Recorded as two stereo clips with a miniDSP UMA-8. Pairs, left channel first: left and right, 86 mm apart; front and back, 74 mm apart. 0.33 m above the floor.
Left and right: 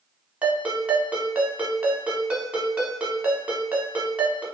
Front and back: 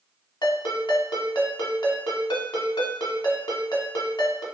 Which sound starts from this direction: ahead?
A ringtone, at 0.4 s.